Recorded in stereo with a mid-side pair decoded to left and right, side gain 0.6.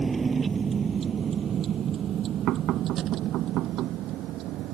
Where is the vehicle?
20° right; by 4.8 s 65° right.